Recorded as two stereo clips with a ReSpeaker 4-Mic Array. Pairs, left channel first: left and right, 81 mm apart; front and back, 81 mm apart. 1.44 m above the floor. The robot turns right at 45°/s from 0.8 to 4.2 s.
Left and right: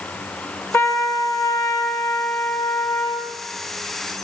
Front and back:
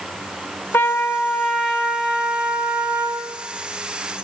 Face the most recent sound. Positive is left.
turn(degrees=-165)